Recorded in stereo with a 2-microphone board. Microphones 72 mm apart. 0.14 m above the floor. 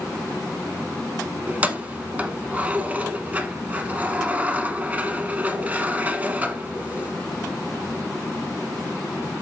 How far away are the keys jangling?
About 0.7 m.